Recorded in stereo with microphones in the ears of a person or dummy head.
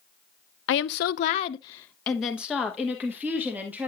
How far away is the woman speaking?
About 0.6 m.